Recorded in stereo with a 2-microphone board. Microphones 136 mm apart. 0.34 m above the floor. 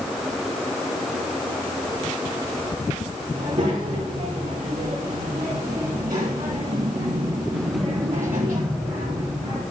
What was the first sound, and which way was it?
A child speaking, 75° right (ahead or behind).